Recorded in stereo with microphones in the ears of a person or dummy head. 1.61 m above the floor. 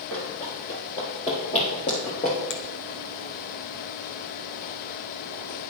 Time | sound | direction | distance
0.1 | running footsteps | 5° left (ahead or behind) | 2.5 m
2.5 | a finger snap | 75° left (ahead or behind) | 1.0 m